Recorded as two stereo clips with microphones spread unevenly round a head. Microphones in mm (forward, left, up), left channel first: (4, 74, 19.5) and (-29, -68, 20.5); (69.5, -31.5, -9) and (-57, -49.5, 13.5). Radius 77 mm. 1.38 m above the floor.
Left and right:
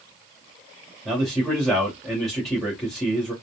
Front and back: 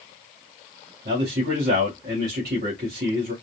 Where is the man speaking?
165° left, 2.5 m.